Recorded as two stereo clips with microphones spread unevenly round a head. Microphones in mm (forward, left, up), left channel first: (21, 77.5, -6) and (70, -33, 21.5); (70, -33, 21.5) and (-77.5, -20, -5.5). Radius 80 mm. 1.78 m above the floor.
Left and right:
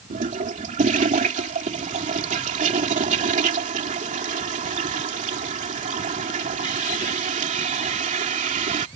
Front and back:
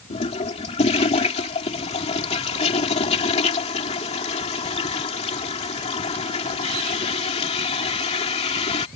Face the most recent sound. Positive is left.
turn(degrees=-50)